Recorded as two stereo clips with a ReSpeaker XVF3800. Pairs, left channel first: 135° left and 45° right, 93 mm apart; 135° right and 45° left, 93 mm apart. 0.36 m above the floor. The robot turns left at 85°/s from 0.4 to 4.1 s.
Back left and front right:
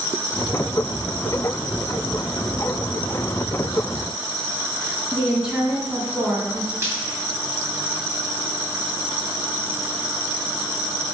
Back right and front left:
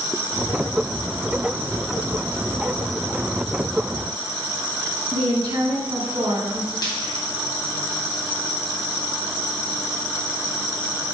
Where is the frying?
105° right, 2.5 m.